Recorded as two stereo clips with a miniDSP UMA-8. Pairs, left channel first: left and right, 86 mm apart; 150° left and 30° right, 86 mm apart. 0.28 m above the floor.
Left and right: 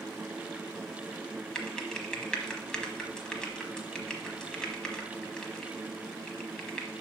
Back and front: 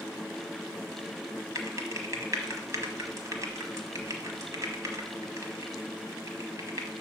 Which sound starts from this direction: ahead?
Typing on a keyboard, at 1.6 s.